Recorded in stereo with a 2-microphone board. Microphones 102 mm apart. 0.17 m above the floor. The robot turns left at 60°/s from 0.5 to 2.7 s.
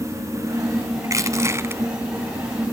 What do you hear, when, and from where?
1.0 s crushing: 85° right, 1.5 m; by 1.8 s 135° right, 1.5 m